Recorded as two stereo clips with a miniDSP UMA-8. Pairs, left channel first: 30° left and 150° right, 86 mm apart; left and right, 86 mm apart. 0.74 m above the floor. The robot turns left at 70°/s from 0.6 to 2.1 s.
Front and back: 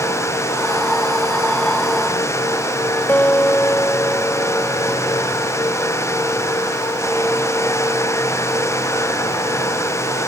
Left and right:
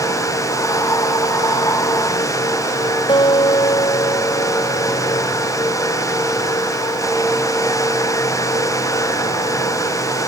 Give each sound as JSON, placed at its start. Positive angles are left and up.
{"t": 3.1, "sound": "a guitar", "azimuth_deg": 95}